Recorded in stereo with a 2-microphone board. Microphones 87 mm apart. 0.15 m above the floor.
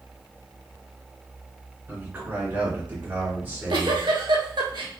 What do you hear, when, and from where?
1.9 s a man speaking: 20° right (ahead or behind), 1.6 m
3.4 s a giggle: 65° right (ahead or behind), 0.7 m